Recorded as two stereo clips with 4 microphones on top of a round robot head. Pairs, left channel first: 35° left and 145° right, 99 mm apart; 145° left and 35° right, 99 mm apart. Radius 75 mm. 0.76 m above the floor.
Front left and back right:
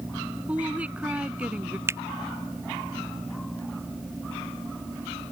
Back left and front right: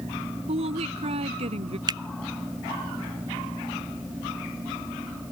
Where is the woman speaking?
65° right.